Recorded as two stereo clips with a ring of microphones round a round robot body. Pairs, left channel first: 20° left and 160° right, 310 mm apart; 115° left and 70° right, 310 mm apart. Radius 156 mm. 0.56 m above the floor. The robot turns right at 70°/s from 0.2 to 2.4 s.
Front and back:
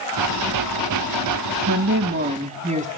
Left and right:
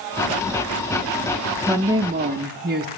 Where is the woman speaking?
155° right, 0.7 m; by 2.9 s 105° right, 0.7 m.